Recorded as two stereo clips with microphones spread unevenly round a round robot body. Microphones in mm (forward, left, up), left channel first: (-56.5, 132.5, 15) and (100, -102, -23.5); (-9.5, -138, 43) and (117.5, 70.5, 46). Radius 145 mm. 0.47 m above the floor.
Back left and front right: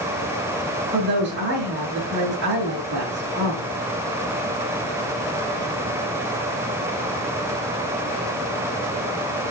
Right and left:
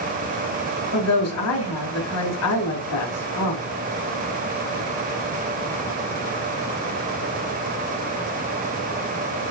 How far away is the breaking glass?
I don't hear breaking glass.